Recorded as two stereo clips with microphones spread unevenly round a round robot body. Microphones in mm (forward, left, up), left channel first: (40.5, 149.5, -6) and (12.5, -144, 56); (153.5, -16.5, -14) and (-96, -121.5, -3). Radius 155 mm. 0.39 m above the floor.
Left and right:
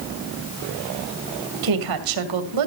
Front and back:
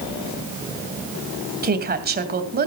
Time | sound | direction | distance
1.6 | a woman speaking | 105° right | 2.5 m